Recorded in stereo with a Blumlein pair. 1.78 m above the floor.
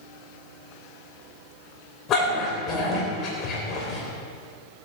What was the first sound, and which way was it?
A dog barking, 30° left.